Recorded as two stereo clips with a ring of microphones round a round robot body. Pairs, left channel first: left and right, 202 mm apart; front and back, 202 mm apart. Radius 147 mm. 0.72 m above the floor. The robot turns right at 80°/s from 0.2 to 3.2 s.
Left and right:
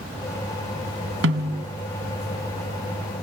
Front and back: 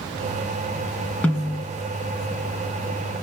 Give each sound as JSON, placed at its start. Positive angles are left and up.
{"t": 1.2, "sound": "a snare drum", "azimuth_deg": -85, "distance_m": 1.4}